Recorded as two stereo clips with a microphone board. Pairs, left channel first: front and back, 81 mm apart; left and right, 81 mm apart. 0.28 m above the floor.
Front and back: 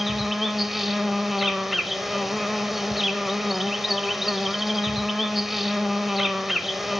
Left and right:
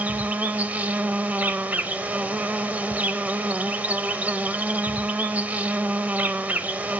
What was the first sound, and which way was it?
An insect, 100° right.